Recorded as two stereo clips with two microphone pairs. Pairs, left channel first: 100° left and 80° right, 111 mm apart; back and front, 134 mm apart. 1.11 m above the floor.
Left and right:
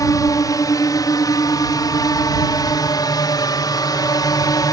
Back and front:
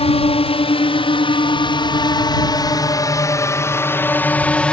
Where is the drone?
150° left; by 4.7 s 105° left.